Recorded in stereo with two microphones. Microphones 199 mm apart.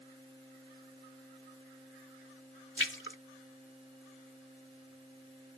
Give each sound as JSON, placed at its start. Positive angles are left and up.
{"t": 2.8, "sound": "a splash", "side_deg": 70}